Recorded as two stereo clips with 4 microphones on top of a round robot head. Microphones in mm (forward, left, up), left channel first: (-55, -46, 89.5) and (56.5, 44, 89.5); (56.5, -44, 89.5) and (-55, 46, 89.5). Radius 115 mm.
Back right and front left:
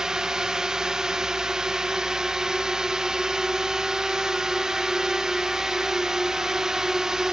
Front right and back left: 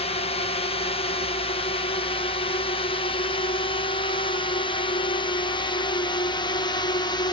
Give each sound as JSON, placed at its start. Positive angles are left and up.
{"t": 0.0, "sound": "a drone", "azimuth_deg": -45}